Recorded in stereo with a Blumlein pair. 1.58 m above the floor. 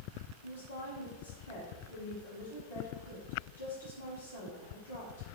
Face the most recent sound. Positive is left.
turn(degrees=70)